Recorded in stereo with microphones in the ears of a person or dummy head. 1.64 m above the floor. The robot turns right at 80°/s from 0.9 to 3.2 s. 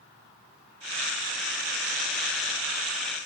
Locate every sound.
Only background noise.